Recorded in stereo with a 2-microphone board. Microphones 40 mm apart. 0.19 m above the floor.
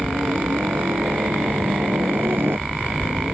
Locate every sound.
0.0 s a helicopter: 65° right (ahead or behind)